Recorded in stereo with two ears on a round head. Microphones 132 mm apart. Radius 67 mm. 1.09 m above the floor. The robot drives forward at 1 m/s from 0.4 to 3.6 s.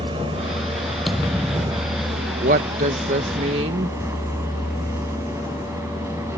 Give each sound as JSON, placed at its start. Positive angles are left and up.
{"t": 0.0, "sound": "a vehicle", "side_deg": -40}
{"t": 1.1, "sound": "a thud", "side_deg": 0}
{"t": 2.4, "sound": "a woman speaking", "side_deg": -60}